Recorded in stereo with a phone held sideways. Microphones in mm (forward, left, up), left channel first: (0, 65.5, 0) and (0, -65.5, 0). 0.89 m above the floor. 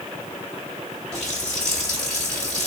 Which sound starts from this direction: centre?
A running tap, at 1.1 s.